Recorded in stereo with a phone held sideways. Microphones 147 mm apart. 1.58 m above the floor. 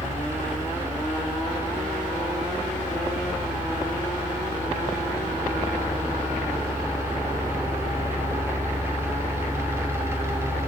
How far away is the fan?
About 2.5 m.